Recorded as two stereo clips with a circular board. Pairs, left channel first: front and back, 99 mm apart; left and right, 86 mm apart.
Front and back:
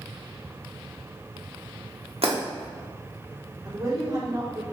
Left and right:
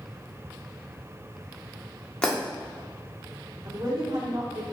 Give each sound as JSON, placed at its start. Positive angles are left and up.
{"t": 2.2, "sound": "breaking glass", "azimuth_deg": 165, "distance_m": 1.5}
{"t": 3.6, "sound": "a woman speaking", "azimuth_deg": -125, "distance_m": 2.5}